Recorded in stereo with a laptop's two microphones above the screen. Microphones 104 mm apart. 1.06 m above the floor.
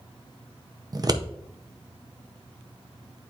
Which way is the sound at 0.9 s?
40° right (ahead or behind).